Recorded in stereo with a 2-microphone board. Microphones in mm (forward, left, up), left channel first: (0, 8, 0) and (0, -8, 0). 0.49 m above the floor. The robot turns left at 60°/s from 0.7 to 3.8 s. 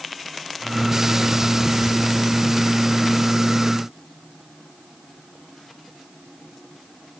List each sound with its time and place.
Only background noise.